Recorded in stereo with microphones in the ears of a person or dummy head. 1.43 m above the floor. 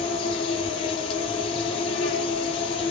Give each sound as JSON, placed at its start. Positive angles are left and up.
{"t": 0.0, "sound": "an insect", "side_deg": 30, "distance_m": 0.9}